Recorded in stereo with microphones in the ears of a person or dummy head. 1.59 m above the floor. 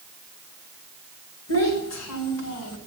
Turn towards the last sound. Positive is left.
turn(degrees=80)